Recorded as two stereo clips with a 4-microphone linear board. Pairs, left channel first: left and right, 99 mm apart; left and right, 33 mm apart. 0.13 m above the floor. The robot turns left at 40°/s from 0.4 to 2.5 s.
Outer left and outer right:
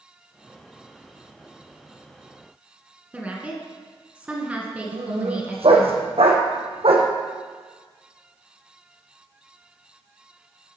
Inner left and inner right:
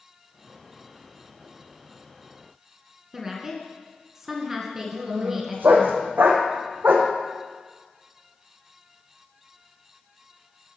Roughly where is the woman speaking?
Centre.